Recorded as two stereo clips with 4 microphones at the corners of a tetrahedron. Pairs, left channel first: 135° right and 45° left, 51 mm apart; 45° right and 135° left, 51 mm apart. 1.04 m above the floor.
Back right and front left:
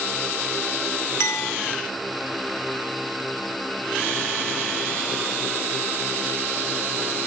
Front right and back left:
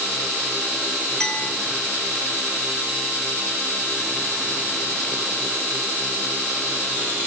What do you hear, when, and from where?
1.2 s a clink: 120° right, 2 m